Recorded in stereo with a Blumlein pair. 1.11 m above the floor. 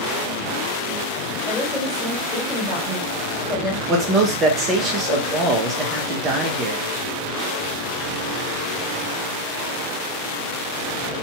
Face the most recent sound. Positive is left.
turn(degrees=-25)